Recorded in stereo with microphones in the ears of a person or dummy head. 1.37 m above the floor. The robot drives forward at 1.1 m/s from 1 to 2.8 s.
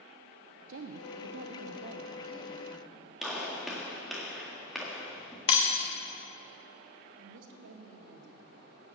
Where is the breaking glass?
40° left (ahead or behind), 1.2 m.